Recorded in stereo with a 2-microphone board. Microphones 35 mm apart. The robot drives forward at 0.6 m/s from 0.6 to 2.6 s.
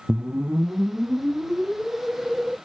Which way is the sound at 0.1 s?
60° right (ahead or behind).